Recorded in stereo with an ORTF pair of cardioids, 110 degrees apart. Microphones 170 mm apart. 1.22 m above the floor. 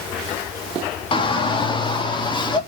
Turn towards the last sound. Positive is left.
turn(degrees=25)